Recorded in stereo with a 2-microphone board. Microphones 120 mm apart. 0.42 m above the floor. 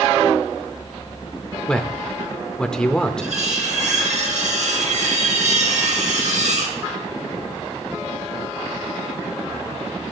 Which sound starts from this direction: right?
Cutlery clinking, at 3.2 s.